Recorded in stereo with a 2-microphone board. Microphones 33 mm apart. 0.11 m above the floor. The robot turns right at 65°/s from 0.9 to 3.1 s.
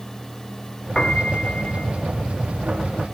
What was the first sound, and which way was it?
A piano, 25° left.